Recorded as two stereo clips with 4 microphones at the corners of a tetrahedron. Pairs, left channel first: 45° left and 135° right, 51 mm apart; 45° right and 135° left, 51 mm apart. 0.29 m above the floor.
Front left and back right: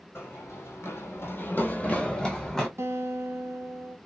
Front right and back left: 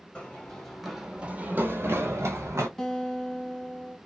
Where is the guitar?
120° right, 0.7 m.